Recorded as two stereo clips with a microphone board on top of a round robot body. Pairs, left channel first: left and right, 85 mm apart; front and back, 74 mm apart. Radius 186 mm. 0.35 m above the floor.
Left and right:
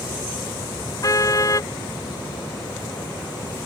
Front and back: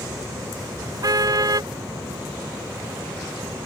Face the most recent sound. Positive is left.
turn(degrees=140)